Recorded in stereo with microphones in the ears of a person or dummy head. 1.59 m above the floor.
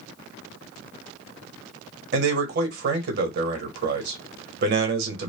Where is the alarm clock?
No alarm clock in this recording.